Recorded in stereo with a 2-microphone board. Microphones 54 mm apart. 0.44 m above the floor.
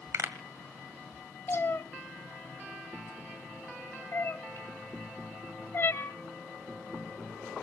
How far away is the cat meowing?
About 1.1 m.